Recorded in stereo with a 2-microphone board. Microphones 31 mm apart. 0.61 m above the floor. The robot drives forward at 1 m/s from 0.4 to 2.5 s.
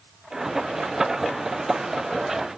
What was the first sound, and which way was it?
Only background noise.